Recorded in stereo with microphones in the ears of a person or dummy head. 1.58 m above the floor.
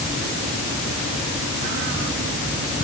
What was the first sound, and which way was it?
Only background noise.